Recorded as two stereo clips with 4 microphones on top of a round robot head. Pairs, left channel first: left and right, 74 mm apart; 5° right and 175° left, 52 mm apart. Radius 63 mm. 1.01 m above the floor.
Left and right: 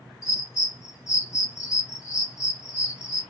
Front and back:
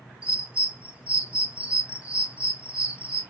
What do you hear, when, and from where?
0.2 s a bird: 115° left, 1.1 m